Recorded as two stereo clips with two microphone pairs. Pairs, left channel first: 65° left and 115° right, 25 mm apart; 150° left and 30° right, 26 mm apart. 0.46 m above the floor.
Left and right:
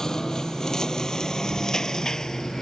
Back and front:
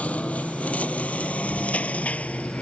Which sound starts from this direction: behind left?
A lawn mower, at 0.0 s.